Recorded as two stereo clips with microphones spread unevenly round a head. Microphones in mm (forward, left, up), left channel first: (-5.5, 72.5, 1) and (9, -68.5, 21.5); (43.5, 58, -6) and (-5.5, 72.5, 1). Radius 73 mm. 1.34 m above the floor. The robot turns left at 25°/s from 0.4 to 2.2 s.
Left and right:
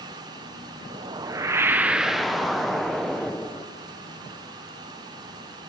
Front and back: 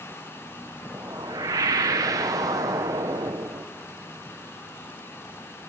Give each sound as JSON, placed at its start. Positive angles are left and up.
{"t": 0.9, "sound": "a whoosh", "azimuth_deg": -145, "distance_m": 0.8}